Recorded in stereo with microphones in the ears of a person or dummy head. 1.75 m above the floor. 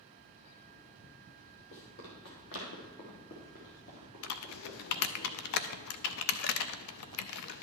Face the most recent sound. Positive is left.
turn(degrees=55)  # may be behind; listen again after turning